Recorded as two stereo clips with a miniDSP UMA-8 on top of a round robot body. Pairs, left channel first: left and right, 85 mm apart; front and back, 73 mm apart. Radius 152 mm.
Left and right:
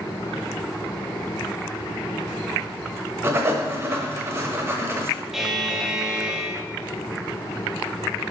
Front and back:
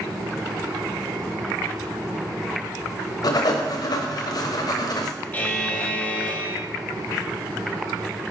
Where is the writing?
30° right, 1.0 m.